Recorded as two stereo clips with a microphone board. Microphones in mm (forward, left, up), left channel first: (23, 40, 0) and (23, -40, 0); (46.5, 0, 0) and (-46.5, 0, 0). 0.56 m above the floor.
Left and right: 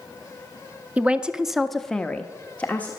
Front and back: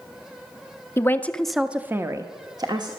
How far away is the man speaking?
About 0.7 m.